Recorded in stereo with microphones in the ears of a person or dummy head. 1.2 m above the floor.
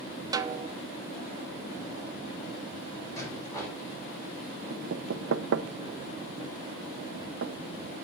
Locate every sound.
0.3 s a snare drum: 15° right (ahead or behind), 0.5 m
3.2 s a rattle: 15° left (ahead or behind), 4.5 m
4.7 s knocking: 60° right (ahead or behind), 0.6 m